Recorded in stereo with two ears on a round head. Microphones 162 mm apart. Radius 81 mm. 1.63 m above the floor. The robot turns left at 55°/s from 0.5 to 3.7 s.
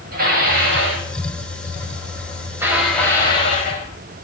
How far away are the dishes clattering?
About 6.5 m.